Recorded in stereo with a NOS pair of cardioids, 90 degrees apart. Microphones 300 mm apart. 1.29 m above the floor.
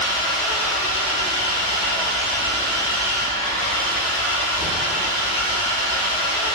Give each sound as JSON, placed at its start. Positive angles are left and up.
{"t": 0.0, "sound": "an engine running", "azimuth_deg": 50, "distance_m": 0.7}